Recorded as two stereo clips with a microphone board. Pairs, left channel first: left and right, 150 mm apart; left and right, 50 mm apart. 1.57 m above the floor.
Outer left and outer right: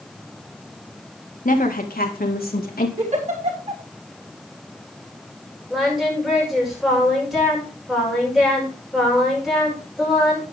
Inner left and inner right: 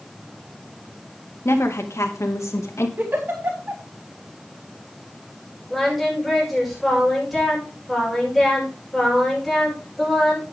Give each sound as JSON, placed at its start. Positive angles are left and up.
{"t": 1.4, "sound": "a woman speaking", "side_deg": 60, "distance_m": 2.0}
{"t": 3.0, "sound": "a giggle", "side_deg": -50, "distance_m": 5.0}
{"t": 5.7, "sound": "singing", "side_deg": 0, "distance_m": 7.0}